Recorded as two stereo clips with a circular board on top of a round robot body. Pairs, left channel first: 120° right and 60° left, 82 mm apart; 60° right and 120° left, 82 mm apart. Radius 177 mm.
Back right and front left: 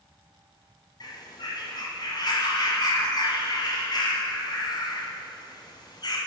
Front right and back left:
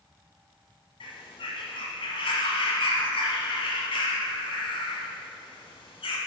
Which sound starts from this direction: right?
A bird, at 1.0 s.